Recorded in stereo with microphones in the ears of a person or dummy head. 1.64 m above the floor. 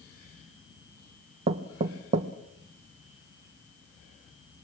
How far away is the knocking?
About 1.0 m.